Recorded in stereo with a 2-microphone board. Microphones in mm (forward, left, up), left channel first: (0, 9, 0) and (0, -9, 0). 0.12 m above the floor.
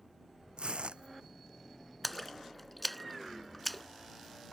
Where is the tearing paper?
80° right.